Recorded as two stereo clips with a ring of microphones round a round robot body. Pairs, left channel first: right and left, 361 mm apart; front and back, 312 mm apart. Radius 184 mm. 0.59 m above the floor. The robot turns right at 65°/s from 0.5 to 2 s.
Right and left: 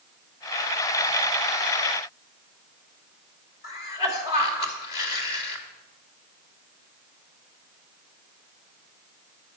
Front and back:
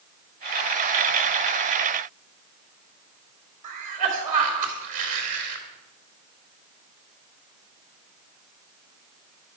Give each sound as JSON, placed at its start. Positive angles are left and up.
{"t": 3.6, "sound": "a cough", "azimuth_deg": -115, "distance_m": 3.0}